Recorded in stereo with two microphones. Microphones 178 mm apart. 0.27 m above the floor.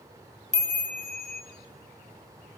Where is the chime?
40° right (ahead or behind), 1.8 m.